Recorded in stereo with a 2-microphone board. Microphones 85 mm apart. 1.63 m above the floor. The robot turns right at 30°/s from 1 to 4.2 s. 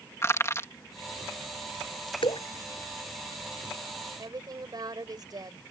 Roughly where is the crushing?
Left.